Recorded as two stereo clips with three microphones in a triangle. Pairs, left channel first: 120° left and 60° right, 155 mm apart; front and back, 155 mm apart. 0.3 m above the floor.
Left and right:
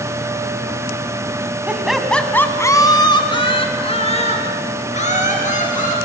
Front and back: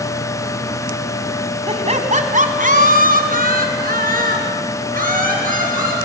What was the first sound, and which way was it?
Laughter, 140° right.